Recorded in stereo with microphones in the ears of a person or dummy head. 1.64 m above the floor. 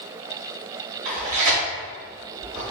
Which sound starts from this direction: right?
Tearing paper, at 1.1 s.